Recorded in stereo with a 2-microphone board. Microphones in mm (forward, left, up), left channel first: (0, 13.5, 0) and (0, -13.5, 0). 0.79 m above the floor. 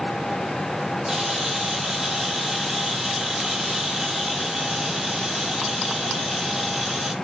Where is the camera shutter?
15° right (ahead or behind), 6.5 m.